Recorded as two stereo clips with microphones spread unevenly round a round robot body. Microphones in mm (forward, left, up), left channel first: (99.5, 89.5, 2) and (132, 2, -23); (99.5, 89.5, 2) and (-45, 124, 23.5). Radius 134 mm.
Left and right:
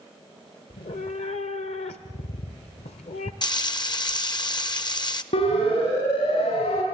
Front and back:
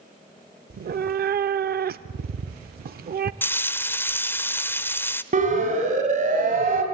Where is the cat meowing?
145° left, 0.6 m.